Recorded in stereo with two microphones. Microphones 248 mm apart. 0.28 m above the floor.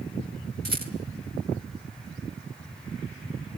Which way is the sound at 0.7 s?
40° right (ahead or behind).